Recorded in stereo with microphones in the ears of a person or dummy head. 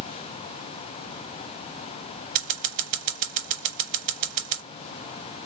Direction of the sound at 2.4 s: 40° right (ahead or behind).